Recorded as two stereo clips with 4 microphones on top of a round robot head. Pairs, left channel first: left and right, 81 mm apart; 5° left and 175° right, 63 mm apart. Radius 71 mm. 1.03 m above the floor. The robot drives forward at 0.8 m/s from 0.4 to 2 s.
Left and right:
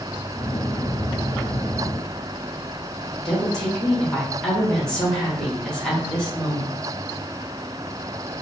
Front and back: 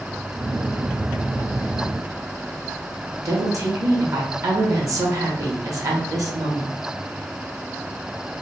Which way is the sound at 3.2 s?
175° left.